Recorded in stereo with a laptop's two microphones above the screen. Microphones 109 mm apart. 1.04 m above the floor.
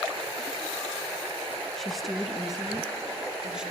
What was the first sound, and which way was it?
A woman speaking, 5° left (ahead or behind).